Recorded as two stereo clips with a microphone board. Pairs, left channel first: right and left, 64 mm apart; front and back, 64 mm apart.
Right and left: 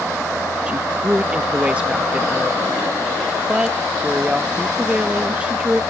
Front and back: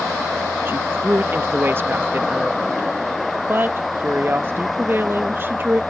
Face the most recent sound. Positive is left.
turn(degrees=150)